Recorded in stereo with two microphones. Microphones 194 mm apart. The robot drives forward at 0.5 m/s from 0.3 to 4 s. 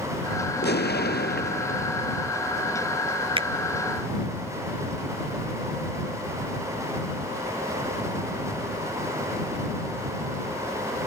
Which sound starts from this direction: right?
A finger snap, at 3.4 s.